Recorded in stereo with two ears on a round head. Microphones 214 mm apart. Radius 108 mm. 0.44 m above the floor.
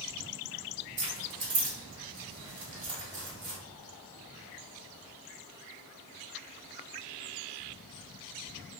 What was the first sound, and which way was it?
Keys jangling, 55° right (ahead or behind).